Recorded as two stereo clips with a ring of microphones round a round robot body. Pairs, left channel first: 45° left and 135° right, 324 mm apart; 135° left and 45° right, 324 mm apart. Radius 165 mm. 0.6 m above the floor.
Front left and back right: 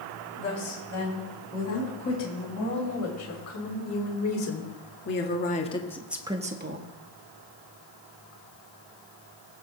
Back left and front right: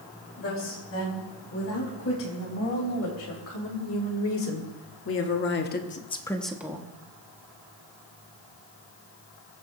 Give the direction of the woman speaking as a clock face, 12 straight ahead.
9 o'clock.